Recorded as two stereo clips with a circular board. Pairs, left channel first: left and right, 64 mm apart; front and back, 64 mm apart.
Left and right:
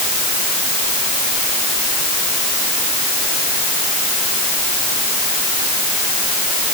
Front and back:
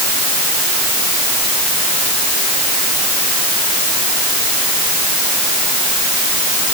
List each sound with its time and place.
Only background noise.